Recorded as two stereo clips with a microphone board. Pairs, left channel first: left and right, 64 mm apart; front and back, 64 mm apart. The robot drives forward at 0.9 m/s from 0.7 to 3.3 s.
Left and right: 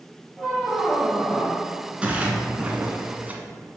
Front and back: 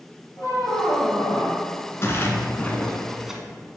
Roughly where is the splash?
Ahead right.